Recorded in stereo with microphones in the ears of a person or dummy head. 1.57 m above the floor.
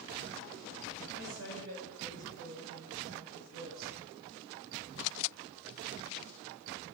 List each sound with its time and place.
1.1 s a woman speaking: 70° right (ahead or behind), 6.5 m